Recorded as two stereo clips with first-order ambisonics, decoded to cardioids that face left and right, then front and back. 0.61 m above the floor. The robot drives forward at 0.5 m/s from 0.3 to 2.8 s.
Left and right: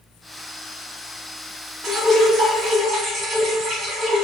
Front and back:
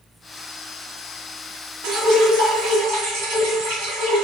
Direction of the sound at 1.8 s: 165° right.